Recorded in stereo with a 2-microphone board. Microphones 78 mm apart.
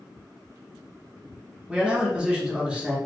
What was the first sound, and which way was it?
A man speaking, 10° right (ahead or behind).